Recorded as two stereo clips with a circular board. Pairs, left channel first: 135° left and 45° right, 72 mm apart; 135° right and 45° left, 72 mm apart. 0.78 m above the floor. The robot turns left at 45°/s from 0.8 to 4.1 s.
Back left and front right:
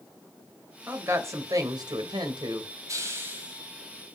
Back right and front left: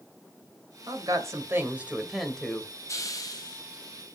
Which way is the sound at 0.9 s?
20° left.